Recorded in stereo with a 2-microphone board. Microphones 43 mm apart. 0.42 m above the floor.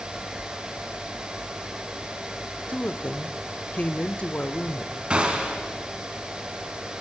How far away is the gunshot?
About 3 m.